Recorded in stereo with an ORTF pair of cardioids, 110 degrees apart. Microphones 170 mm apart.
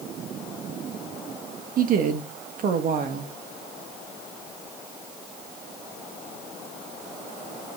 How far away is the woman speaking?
About 2 m.